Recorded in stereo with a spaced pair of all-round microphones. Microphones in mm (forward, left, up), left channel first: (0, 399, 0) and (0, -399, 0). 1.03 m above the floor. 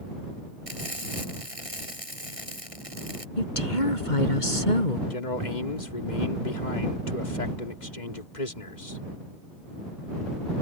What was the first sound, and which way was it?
Frying, 45° right (ahead or behind).